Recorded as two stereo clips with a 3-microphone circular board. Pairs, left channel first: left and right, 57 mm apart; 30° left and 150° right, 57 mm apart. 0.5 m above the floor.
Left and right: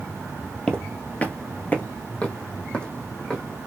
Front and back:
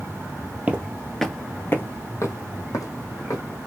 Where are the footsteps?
155° left, 0.6 m; by 3.4 s 20° left, 1.5 m.